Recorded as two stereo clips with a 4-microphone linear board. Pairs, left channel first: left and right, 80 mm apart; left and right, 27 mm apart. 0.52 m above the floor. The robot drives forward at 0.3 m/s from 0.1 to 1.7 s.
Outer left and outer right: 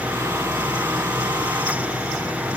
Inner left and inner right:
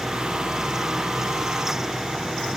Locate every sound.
Only background noise.